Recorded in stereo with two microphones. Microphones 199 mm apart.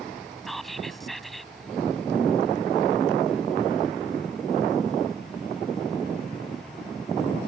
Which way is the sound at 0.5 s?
Centre (ahead or behind).